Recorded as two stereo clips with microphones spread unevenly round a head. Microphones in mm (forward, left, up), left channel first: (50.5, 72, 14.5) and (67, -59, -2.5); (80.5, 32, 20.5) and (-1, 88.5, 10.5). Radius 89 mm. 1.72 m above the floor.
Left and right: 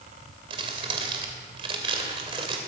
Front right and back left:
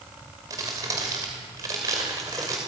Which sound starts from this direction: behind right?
Crumpling, at 0.5 s.